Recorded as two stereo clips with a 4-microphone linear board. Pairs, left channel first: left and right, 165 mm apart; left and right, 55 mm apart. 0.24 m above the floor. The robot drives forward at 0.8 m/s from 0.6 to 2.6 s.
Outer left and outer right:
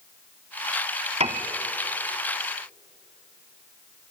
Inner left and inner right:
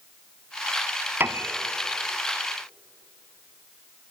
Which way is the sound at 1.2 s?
40° right (ahead or behind).